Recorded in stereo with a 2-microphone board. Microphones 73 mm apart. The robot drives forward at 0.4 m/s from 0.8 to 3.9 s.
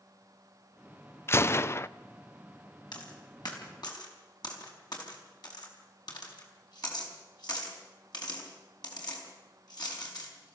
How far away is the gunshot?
About 0.5 m.